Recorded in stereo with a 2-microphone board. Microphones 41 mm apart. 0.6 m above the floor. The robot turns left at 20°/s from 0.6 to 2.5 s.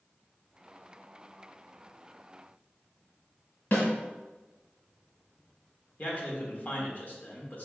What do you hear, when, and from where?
3.7 s a snare drum: 50° left (ahead or behind), 1.9 m
6.0 s a man speaking: 40° left (ahead or behind), 1.2 m